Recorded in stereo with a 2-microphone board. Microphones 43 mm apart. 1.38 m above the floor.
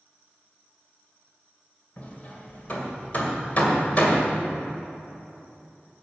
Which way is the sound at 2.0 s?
40° left (ahead or behind).